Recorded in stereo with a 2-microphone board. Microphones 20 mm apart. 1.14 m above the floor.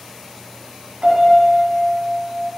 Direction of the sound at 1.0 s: 80° right.